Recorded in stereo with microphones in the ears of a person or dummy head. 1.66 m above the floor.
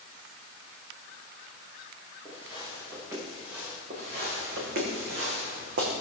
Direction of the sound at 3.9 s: 45° right (ahead or behind).